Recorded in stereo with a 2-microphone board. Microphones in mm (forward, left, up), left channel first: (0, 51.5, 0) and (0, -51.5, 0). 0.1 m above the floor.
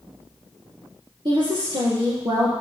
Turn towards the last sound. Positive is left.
turn(degrees=-50)  # may be behind; listen again after turning